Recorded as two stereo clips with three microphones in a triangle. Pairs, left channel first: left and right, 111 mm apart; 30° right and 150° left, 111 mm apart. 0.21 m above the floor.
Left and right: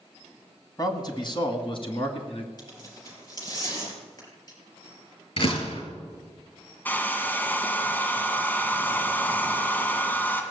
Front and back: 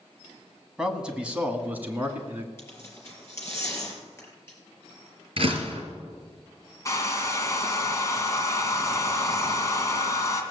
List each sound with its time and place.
0.8 s a man speaking: 70° left, 1.6 m; by 2.5 s 80° left, 2.5 m
2.6 s tearing paper: 35° left, 4 m
5.4 s a door slam: 115° left, 3 m
6.8 s a hair dryer: 20° left, 2.0 m